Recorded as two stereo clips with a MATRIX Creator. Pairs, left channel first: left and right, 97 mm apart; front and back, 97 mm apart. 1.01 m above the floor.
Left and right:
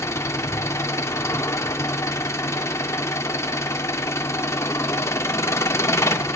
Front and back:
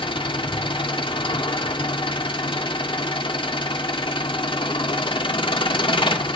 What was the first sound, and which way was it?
An engine running, 30° left.